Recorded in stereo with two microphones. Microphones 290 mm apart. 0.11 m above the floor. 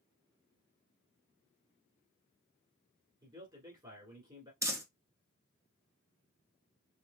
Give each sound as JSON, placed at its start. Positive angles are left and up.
{"t": 3.2, "sound": "a man speaking", "side_deg": -15, "distance_m": 1.5}
{"t": 4.6, "sound": "crumpling", "side_deg": -10, "distance_m": 0.8}